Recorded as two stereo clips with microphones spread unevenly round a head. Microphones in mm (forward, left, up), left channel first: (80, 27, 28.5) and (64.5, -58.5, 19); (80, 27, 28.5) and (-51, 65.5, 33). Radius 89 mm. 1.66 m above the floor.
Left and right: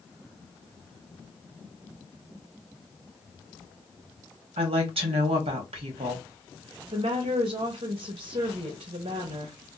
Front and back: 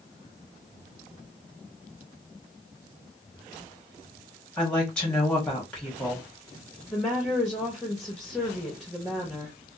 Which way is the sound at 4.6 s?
100° right.